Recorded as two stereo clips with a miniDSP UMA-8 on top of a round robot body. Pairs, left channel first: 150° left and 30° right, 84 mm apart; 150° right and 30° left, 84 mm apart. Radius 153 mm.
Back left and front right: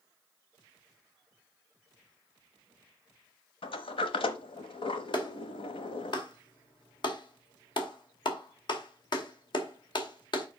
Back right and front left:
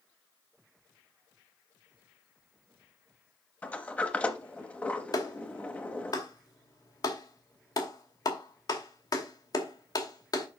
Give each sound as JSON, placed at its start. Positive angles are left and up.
{"t": 3.6, "sound": "a sliding door", "azimuth_deg": 135, "distance_m": 0.7}
{"t": 5.1, "sound": "a clap", "azimuth_deg": 170, "distance_m": 2.5}